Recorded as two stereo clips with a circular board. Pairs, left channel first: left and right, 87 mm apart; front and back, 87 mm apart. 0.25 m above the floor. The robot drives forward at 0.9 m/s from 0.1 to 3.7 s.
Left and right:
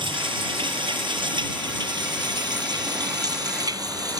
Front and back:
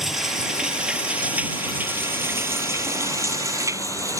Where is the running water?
95° right; by 4.2 s 130° right.